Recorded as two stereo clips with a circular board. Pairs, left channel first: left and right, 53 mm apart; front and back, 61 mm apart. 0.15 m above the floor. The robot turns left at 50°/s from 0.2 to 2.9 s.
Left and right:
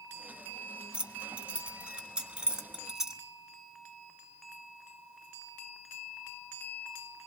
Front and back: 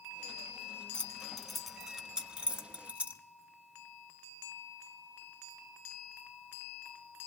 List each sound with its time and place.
0.9 s keys jangling: 60° right, 0.8 m; by 3.2 s 155° right, 0.8 m